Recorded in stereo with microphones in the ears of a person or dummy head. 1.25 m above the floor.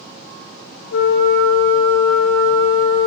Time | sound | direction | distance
0.9 | a flute | 75° left (ahead or behind) | 0.8 m